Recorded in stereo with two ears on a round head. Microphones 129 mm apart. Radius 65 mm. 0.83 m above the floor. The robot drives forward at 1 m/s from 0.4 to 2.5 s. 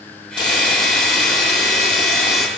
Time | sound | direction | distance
0.4 | a hiss | 30° left (ahead or behind) | 9 m